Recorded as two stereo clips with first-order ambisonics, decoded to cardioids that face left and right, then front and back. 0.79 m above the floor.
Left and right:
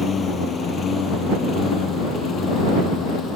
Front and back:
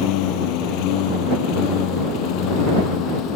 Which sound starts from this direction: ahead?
A lawn mower, at 0.0 s.